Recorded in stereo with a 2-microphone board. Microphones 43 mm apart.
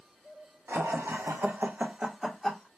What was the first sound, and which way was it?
Laughter, 85° right.